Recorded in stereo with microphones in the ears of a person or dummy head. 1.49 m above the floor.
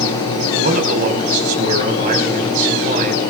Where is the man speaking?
45° right (ahead or behind), 5 m.